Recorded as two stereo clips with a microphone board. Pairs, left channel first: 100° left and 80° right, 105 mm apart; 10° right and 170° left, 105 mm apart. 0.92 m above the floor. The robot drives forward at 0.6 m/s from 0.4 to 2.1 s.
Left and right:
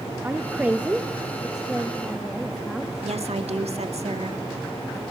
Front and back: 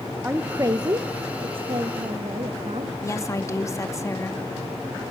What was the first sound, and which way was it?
A woman speaking, 135° right.